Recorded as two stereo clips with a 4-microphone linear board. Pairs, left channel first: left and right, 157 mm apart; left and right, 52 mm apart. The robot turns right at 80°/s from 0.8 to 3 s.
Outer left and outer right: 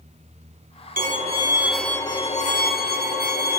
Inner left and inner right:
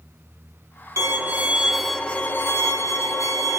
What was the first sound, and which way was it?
A violin, 65° right.